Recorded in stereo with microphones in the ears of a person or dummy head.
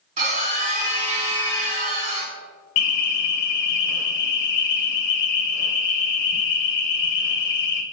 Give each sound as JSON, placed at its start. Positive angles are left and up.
{"t": 0.2, "sound": "a scream", "side_deg": -40, "distance_m": 2.5}
{"t": 2.8, "sound": "an alarm", "side_deg": 55, "distance_m": 0.6}